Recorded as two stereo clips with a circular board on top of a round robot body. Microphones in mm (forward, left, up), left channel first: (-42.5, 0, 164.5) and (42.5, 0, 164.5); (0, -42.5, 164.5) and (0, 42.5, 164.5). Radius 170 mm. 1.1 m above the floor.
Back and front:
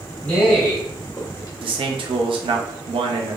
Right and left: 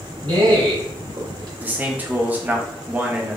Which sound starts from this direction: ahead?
A man speaking, at 1.6 s.